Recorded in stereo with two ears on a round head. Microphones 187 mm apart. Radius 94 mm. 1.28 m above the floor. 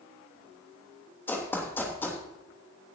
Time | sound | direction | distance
1.3 | running footsteps | 10° left (ahead or behind) | 3 m